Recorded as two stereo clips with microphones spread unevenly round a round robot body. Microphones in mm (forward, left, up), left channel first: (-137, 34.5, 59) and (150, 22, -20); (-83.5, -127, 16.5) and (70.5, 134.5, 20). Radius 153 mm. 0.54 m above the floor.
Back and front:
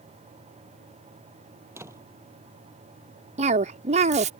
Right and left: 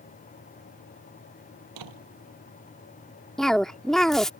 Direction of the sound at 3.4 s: 35° right.